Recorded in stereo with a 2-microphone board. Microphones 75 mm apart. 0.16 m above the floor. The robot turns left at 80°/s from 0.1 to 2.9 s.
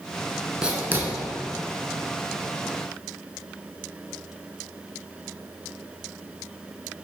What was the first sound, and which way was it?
Writing, 10° right (ahead or behind).